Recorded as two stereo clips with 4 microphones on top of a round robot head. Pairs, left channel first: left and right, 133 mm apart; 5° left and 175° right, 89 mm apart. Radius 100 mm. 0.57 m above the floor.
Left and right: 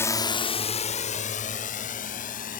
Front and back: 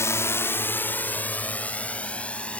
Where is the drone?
35° left; by 2.6 s 80° left.